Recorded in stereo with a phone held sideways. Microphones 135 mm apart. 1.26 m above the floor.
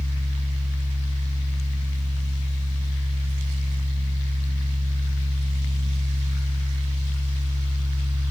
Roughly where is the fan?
Right.